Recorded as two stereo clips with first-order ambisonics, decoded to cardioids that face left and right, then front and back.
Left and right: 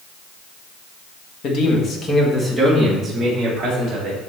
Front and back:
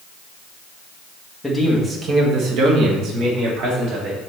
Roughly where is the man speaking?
Left.